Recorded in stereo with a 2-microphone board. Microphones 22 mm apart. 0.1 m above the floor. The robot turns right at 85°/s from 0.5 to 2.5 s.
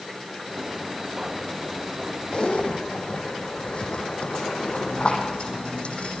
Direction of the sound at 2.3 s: 45° left (ahead or behind).